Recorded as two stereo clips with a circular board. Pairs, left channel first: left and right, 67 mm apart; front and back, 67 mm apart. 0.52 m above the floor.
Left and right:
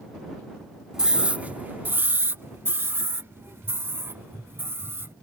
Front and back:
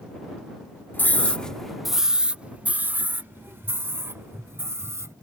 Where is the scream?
20° right; by 5.1 s 140° right.